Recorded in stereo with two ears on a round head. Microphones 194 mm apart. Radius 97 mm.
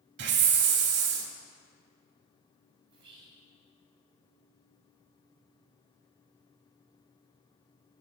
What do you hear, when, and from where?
0.2 s a hiss: 55° right (ahead or behind), 0.9 m
2.9 s whispering: 25° right (ahead or behind), 3 m